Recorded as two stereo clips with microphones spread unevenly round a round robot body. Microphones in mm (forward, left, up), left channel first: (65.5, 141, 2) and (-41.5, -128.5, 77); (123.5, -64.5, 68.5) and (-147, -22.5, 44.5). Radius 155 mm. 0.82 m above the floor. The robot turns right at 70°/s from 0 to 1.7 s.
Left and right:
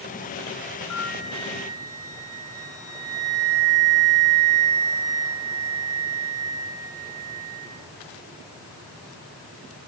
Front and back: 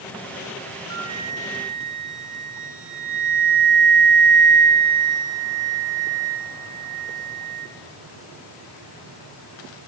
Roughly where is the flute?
Behind left.